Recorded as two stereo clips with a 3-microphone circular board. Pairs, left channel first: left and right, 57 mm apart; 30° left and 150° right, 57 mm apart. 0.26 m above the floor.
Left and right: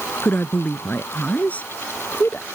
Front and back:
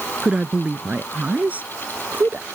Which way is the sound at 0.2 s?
145° left.